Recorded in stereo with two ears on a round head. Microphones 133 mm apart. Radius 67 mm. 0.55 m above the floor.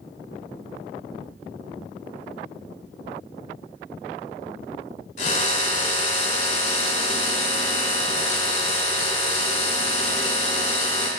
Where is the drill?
50° left (ahead or behind), 1.5 m.